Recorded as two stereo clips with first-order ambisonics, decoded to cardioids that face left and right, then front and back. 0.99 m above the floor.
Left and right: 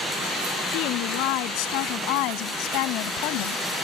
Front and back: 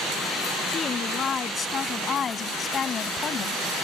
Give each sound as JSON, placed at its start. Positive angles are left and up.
{"t": 0.7, "sound": "a woman speaking", "azimuth_deg": 70}